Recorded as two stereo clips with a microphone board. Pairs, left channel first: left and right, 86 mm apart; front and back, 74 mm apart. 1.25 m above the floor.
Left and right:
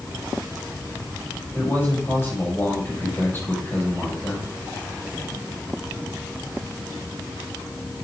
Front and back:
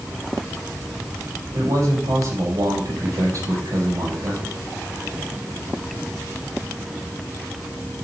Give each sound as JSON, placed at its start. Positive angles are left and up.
{"t": 1.5, "sound": "a man speaking", "azimuth_deg": 150, "distance_m": 6.5}